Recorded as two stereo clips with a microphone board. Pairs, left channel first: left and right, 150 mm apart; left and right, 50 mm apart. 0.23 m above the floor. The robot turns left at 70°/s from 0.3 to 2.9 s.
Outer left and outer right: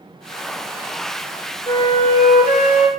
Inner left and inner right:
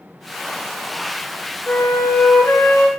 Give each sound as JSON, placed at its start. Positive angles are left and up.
{"t": 1.7, "sound": "a flute", "azimuth_deg": 155, "distance_m": 1.0}